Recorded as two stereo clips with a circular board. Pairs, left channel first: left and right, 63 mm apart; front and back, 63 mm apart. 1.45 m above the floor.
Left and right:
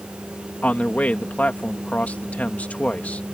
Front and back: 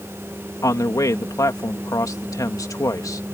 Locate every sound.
0.6 s a man speaking: 25° left